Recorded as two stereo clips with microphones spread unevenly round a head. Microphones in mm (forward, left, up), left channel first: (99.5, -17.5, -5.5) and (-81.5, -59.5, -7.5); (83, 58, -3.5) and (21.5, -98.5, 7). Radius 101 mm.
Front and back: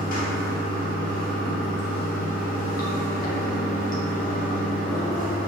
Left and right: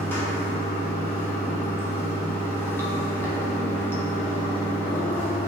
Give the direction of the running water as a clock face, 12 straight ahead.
12 o'clock.